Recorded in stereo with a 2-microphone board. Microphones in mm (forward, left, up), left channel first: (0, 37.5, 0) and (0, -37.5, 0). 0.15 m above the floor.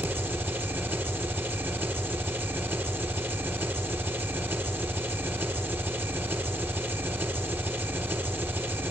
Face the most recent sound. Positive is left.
turn(degrees=-30)  # may be behind; listen again after turning